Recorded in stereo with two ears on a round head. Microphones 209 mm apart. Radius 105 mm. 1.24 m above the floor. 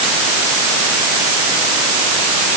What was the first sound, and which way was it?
Only background noise.